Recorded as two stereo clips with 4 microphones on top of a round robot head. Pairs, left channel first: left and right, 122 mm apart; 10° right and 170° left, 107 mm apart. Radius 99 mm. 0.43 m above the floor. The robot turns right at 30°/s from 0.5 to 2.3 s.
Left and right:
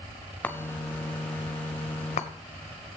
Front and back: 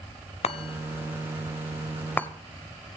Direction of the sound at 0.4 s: 10° left.